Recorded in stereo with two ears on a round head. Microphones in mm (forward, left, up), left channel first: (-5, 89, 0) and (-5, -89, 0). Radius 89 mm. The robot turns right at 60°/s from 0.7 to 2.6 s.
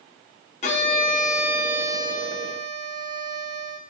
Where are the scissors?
I don't hear scissors.